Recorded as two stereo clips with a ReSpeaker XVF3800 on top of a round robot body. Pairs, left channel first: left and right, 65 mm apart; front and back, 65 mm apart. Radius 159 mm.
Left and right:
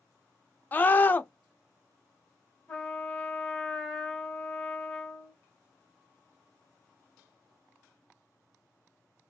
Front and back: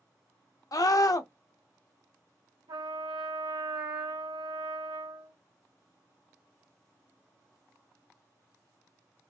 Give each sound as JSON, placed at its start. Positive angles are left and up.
{"t": 0.7, "sound": "a scream", "azimuth_deg": 30, "distance_m": 0.8}
{"t": 2.7, "sound": "a trumpet", "azimuth_deg": 175, "distance_m": 1.1}